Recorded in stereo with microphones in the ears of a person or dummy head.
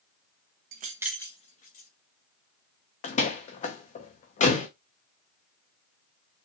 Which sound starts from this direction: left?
A door slam, at 3.0 s.